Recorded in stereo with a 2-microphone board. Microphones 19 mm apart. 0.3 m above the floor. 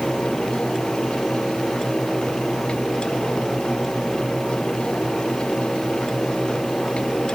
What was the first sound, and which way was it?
Only background noise.